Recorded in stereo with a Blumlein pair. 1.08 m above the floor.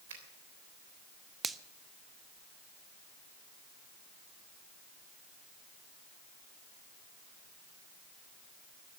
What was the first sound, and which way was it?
A finger snap, 60° right.